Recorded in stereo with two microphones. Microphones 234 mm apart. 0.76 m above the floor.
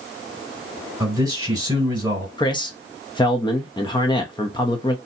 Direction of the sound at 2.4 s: 20° left (ahead or behind).